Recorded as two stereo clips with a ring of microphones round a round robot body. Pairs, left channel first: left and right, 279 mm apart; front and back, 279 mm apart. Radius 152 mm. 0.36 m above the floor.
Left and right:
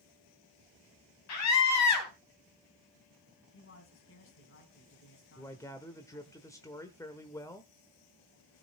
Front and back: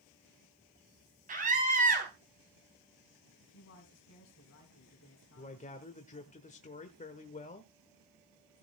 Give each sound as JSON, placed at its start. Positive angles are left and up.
{"t": 1.3, "sound": "a scream", "azimuth_deg": 115, "distance_m": 3.5}
{"t": 3.5, "sound": "a man speaking", "azimuth_deg": 50, "distance_m": 3.5}
{"t": 5.4, "sound": "a man speaking", "azimuth_deg": 25, "distance_m": 1.1}